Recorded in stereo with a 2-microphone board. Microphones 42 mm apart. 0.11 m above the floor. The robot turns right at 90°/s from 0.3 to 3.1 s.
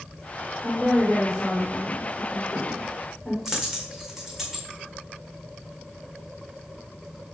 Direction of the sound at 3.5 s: 5° right (ahead or behind).